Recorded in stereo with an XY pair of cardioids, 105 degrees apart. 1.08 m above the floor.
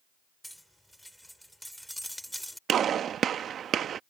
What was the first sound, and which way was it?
Cutlery clinking, straight ahead.